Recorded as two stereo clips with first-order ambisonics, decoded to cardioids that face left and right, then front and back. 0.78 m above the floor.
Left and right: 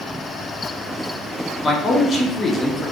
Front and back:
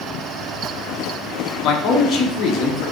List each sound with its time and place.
1.6 s a man speaking: 20° left, 0.7 m